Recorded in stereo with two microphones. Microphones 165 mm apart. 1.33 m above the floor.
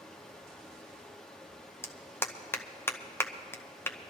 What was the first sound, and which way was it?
Running water, 5° left (ahead or behind).